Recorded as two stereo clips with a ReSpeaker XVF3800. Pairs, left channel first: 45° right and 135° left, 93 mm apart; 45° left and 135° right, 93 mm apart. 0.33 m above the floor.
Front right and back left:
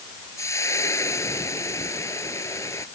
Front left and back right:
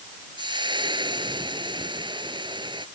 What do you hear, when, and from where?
0.4 s frying: 100° right